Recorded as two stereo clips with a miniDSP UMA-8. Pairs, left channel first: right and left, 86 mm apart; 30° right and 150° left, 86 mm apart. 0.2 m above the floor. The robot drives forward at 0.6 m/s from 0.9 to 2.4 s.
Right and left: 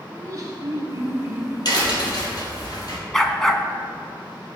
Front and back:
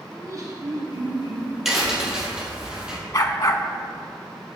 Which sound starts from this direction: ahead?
A dog barking, at 3.1 s.